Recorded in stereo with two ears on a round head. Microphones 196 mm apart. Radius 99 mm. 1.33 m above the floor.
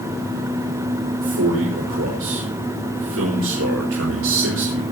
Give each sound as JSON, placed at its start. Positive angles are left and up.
{"t": 1.2, "sound": "a man speaking", "side_deg": -70, "distance_m": 5.5}